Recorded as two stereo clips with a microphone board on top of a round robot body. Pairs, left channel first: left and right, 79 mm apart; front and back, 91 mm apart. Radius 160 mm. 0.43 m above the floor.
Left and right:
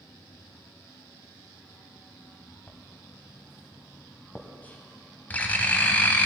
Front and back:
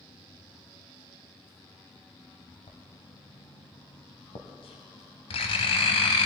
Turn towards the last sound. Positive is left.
turn(degrees=20)